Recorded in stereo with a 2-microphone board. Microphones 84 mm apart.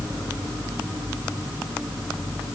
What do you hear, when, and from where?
Only background noise.